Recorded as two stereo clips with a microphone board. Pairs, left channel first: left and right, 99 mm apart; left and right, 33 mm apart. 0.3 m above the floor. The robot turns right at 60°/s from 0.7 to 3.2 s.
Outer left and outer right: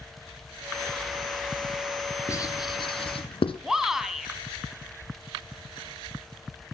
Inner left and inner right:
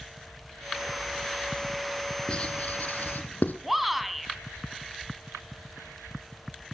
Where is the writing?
30° left (ahead or behind), 1.9 m; by 3.5 s 75° left (ahead or behind), 1.9 m.